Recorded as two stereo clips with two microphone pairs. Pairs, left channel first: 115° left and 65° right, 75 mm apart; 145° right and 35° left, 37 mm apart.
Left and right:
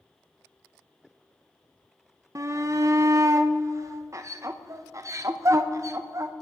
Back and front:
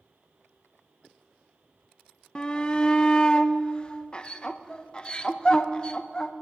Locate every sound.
2.4 s a shout: 90° right, 0.5 m